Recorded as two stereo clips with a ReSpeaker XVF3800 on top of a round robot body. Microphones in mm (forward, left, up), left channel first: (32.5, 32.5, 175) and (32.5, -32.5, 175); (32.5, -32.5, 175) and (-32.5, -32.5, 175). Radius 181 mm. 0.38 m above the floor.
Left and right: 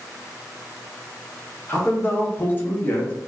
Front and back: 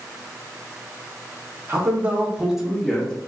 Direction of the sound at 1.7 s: 140° left.